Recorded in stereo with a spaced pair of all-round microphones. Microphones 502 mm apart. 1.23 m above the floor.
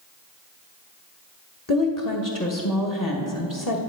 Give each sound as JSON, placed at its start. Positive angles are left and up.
{"t": 1.7, "sound": "a woman speaking", "side_deg": 40, "distance_m": 1.3}